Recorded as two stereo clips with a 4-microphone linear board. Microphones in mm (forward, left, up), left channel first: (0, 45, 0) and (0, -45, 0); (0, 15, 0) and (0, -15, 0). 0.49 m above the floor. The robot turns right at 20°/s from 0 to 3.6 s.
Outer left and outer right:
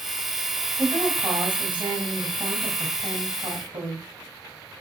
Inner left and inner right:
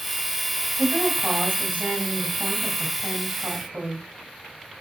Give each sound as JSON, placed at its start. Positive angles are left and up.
{"t": 0.8, "sound": "a woman speaking", "azimuth_deg": -130, "distance_m": 3.0}